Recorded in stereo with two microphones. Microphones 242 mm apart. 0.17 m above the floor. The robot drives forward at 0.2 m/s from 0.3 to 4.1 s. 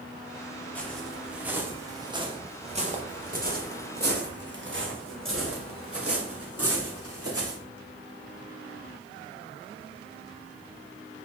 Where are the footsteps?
5° left (ahead or behind), 1.6 m; by 7.6 s 75° right (ahead or behind), 3.5 m.